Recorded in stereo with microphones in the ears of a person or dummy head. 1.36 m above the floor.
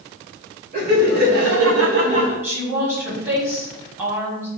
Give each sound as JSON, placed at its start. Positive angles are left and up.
{"t": 0.7, "sound": "laughter", "side_deg": -55, "distance_m": 1.7}
{"t": 2.4, "sound": "a woman speaking", "side_deg": -10, "distance_m": 1.9}